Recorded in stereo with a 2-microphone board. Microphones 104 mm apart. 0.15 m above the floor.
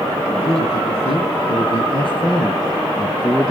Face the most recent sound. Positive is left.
turn(degrees=5)  # may be behind; listen again after turning